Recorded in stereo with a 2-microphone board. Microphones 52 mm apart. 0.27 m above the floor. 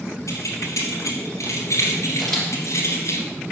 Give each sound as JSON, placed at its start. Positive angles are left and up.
{"t": 0.3, "sound": "keys jangling", "side_deg": 75, "distance_m": 3.5}
{"t": 2.2, "sound": "a camera shutter", "side_deg": 5, "distance_m": 3.5}